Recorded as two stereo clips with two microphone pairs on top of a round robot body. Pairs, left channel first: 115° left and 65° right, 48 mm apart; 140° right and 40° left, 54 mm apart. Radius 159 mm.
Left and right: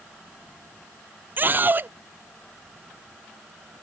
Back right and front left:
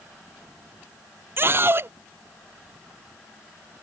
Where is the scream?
10° right.